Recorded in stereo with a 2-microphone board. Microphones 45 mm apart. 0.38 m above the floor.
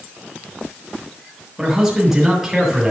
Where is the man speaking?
5° right (ahead or behind), 6.5 m.